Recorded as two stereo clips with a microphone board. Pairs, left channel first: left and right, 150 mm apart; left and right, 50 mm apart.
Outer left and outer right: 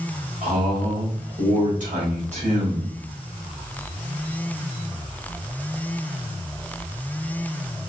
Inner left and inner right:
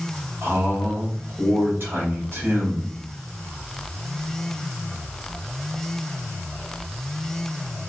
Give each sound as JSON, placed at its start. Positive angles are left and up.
{"t": 0.4, "sound": "a man speaking", "side_deg": -50, "distance_m": 2.5}